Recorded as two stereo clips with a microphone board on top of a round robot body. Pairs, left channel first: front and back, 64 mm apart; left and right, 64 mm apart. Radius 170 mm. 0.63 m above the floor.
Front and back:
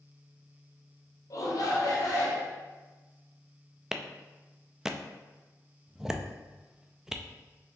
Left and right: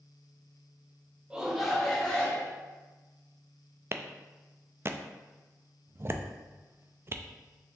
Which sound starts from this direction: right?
A clap, at 3.9 s.